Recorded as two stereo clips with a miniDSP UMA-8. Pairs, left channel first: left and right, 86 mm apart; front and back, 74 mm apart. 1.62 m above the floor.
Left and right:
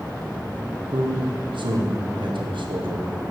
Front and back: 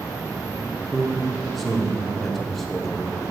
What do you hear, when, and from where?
0.9 s a man speaking: 85° right, 1.2 m